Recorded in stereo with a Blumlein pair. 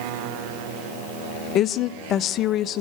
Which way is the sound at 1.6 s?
30° left.